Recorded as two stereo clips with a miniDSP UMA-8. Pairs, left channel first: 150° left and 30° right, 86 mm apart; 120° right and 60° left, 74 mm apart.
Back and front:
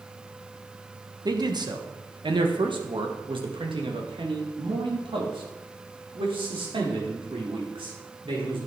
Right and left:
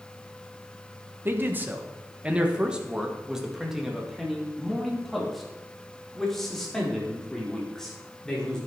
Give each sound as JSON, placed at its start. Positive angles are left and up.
{"t": 1.2, "sound": "a man speaking", "azimuth_deg": 5, "distance_m": 1.3}